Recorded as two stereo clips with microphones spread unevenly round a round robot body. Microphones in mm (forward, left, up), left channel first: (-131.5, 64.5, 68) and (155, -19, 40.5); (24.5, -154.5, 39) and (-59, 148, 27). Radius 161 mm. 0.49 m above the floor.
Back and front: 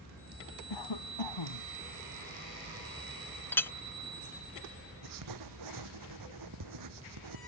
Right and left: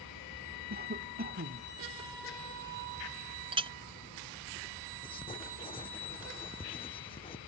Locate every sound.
0.7 s a cough: 165° left
3.5 s a clink: 75° left
5.0 s writing: straight ahead